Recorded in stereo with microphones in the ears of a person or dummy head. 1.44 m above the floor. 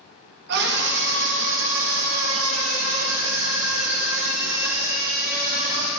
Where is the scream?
65° right (ahead or behind), 2.5 m; by 5.9 s 30° right (ahead or behind), 2 m.